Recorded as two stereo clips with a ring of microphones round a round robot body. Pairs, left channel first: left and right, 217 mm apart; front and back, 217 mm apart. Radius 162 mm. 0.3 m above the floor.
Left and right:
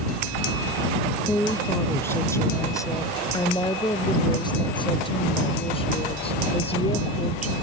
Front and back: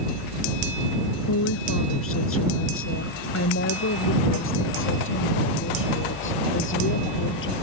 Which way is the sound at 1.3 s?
5° left.